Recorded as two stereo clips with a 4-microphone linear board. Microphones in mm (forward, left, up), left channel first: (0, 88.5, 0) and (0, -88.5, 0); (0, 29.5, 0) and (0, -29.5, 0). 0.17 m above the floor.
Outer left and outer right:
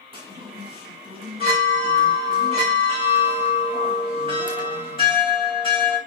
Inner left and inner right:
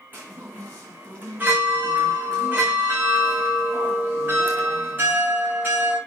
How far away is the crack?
I don't hear a crack.